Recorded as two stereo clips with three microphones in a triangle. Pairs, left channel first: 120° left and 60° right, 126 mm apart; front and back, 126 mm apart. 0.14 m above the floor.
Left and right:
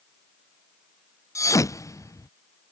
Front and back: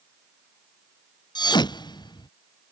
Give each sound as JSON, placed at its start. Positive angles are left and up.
{"t": 1.4, "sound": "a thud", "azimuth_deg": 55}